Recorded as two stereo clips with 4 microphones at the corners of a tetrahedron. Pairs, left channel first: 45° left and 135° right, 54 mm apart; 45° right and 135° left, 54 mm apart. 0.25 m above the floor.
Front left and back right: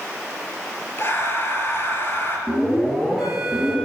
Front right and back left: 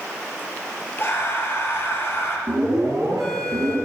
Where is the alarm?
130° left, 6.5 m.